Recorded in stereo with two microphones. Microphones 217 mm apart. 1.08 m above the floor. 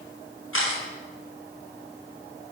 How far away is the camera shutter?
About 5.5 m.